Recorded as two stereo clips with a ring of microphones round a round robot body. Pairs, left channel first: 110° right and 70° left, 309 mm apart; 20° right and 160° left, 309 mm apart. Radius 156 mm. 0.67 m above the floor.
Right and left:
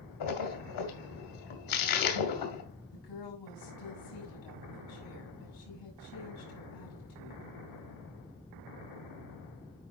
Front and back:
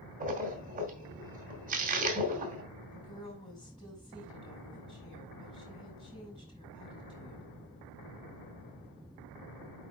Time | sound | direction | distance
0.2 | a splash | 135° right | 2 m
2.9 | a woman speaking | 100° right | 6 m